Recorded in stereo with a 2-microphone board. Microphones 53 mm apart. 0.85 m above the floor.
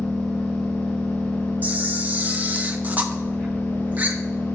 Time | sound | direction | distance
0.0 | an engine running | 15° left (ahead or behind) | 2.5 m
1.6 | a camera shutter | 35° right (ahead or behind) | 0.7 m